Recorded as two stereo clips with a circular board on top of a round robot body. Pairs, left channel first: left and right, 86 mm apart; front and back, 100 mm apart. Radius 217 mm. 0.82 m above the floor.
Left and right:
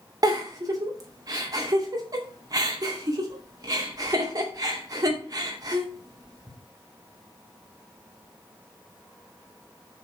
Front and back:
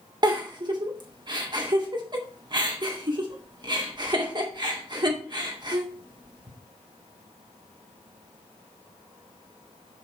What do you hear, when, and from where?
0.2 s a giggle: 140° right, 2.5 m